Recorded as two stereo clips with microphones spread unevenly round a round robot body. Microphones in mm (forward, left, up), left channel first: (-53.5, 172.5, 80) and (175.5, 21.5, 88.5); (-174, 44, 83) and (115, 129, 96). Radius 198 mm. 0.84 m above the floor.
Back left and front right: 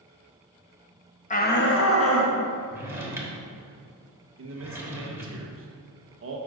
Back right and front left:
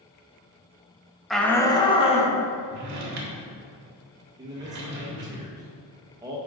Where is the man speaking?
60° right, 1.0 m.